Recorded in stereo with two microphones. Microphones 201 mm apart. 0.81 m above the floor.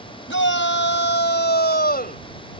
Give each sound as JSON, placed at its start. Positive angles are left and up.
{"t": 0.3, "sound": "a shout", "side_deg": 75}